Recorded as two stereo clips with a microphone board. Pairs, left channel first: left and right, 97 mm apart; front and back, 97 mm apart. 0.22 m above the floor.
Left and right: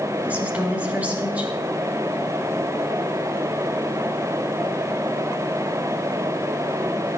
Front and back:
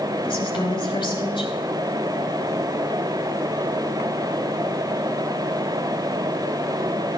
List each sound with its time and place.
0.2 s a woman speaking: 20° right, 3.5 m